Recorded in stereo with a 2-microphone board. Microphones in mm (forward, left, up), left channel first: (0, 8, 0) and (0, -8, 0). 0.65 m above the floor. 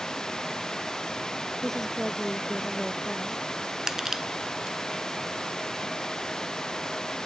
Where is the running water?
45° left (ahead or behind).